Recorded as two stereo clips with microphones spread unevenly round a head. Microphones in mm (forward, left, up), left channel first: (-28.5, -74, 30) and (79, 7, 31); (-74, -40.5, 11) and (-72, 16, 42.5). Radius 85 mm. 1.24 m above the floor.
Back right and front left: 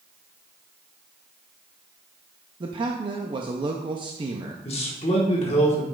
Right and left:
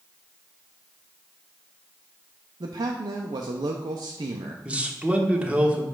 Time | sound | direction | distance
2.6 | a man speaking | 85° left | 0.5 m
4.7 | a man speaking | 170° left | 1.4 m